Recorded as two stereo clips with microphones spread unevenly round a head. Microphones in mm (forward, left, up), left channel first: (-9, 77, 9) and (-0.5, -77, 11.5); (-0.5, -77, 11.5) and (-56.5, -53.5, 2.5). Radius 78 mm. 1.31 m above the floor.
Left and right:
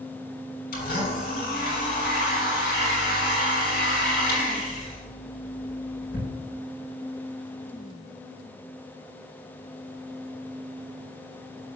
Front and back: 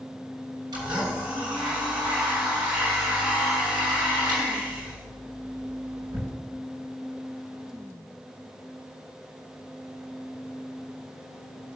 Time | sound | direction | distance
0.7 | a blender | 125° left | 6.5 m